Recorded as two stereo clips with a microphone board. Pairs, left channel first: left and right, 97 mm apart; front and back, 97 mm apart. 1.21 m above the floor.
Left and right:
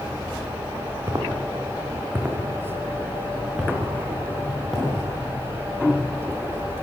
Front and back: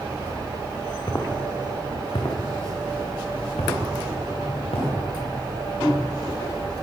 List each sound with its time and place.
1.1 s footsteps: 45° right, 4 m; by 6.5 s 10° left, 9.5 m